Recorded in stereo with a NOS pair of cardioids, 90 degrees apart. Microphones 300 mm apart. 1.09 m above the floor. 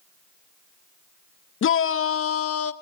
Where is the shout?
45° left, 0.9 m; by 2.7 s 50° left, 1.6 m.